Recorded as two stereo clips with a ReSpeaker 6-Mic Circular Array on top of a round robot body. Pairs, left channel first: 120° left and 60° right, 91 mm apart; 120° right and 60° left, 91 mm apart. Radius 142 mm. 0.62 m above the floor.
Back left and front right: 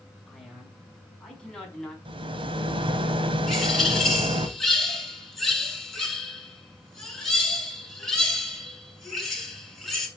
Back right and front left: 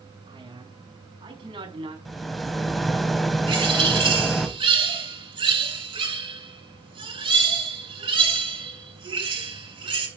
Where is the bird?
30° left, 7.5 m.